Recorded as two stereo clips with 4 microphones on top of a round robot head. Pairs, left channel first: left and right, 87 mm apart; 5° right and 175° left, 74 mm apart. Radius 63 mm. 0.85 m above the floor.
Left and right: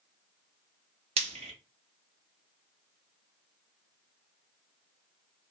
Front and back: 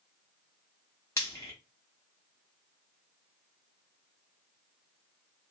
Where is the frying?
75° right, 0.5 m.